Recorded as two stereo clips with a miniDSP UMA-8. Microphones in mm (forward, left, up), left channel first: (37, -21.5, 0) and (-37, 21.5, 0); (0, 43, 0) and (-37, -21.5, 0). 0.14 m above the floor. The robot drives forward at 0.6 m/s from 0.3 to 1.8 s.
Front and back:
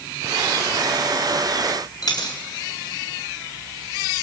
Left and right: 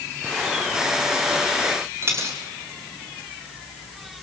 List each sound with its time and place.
2.0 s a dropped coin: 70° right, 3 m